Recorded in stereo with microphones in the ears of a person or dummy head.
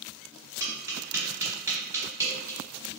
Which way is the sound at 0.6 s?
15° right (ahead or behind).